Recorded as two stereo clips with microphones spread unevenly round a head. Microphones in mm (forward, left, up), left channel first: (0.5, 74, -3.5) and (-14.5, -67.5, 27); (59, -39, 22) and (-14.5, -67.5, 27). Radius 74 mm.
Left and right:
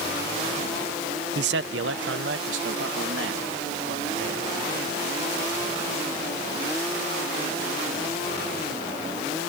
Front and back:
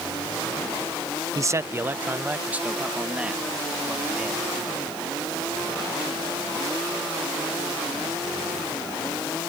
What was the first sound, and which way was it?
A man speaking, 110° right.